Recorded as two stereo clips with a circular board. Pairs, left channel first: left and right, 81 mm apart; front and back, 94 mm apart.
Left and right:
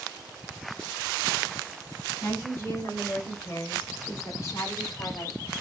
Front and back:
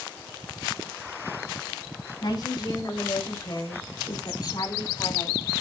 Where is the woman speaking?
25° left, 5.5 m; by 5.5 s 45° left, 4.5 m.